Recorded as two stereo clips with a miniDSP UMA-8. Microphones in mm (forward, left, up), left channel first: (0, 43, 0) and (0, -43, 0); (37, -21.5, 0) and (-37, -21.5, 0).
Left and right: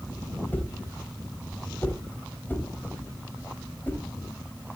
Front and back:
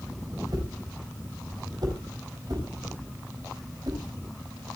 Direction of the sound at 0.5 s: 155° left.